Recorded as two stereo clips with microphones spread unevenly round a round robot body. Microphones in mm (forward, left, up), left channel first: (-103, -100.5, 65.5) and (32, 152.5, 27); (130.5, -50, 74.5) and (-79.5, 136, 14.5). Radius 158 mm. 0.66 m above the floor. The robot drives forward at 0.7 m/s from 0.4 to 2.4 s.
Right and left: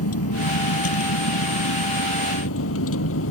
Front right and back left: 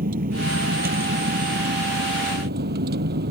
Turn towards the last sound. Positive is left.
turn(degrees=-160)